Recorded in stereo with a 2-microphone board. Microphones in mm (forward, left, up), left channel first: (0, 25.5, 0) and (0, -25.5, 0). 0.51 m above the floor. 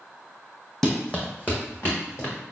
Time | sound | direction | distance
0.8 | running footsteps | 10° left (ahead or behind) | 0.9 m